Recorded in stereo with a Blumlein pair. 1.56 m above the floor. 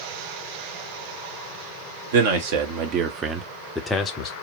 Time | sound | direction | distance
2.1 | a man speaking | 55° right | 1.0 m